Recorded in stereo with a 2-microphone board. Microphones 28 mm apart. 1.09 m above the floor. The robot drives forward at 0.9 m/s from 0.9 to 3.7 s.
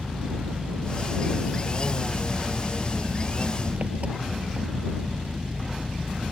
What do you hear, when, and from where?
0.0 s an engine running: 45° right (ahead or behind); by 6.3 s 50° right (ahead or behind)